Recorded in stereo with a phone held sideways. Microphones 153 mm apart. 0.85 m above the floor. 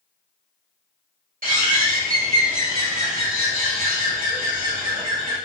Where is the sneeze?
No sneeze in this recording.